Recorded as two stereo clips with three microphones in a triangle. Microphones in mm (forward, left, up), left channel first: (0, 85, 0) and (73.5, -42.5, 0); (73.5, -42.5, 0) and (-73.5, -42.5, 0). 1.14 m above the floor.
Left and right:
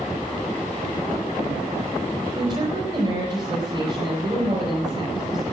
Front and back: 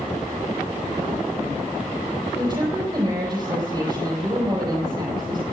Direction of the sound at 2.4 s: 115° right.